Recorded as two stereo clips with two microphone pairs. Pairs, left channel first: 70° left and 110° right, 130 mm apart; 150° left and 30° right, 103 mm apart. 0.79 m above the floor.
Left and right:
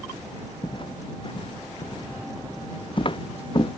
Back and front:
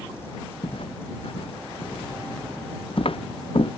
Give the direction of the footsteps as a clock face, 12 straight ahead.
8 o'clock.